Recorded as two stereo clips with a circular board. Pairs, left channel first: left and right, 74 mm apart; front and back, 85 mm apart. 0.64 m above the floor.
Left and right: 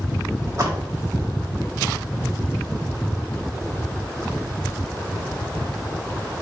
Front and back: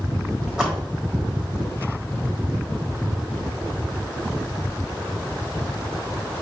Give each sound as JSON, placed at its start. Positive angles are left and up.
{"t": 0.5, "sound": "a splash", "azimuth_deg": -100, "distance_m": 1.4}